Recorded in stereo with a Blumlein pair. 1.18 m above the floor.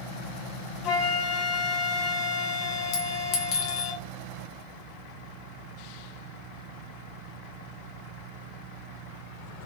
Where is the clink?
40° left, 0.7 m.